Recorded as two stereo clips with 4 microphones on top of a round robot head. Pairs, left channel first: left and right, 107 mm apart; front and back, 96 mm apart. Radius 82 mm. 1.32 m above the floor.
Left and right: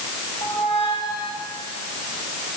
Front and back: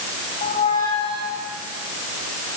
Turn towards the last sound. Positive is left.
turn(degrees=35)